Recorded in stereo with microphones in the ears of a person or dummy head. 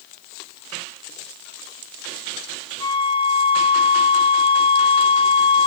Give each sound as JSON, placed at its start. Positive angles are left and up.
{"t": 2.8, "sound": "a flute", "side_deg": 25, "distance_m": 0.8}